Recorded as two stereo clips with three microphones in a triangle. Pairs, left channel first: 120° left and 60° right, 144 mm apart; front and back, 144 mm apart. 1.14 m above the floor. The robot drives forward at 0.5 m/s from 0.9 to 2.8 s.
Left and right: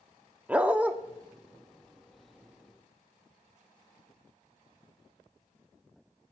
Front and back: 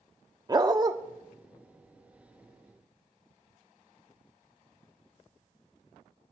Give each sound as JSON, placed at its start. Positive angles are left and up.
{"t": 0.5, "sound": "a dog barking", "azimuth_deg": -135, "distance_m": 0.7}